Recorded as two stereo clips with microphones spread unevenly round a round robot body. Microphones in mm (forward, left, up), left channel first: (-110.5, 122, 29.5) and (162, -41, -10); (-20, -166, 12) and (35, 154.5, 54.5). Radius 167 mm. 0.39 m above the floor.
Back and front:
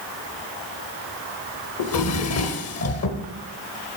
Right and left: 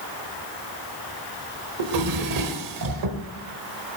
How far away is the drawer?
About 1.2 m.